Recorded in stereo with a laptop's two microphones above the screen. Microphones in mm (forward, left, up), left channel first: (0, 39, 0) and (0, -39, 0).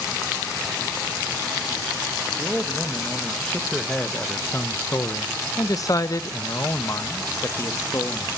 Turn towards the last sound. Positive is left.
turn(degrees=35)  # may be behind; listen again after turning